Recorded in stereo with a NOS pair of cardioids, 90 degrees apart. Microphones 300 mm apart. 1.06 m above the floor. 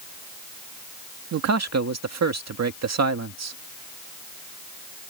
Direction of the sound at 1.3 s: 60° right.